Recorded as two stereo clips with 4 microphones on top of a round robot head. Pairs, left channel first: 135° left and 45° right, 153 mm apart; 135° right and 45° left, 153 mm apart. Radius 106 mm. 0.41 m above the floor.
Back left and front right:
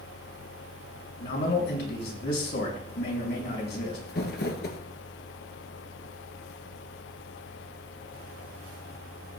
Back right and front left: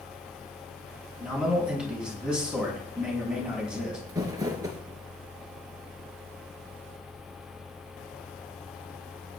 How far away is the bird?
I don't hear a bird.